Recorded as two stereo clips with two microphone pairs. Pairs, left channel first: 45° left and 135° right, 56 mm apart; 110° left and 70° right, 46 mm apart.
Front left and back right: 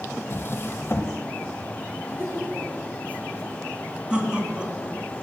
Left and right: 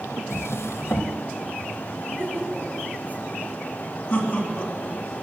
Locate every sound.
0.3 s a drawer: 100° left, 1.1 m
2.0 s laughter: 85° right, 4 m
4.1 s laughter: 160° left, 2 m